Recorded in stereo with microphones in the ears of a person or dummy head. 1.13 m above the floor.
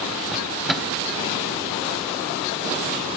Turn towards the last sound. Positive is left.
turn(degrees=0)  # may be behind; listen again after turning